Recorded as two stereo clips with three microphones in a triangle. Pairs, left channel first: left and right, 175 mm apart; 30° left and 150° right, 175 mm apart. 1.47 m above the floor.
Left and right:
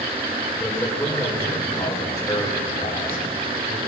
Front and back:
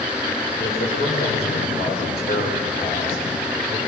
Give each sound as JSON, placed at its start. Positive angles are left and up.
{"t": 0.6, "sound": "a man speaking", "azimuth_deg": 5, "distance_m": 6.0}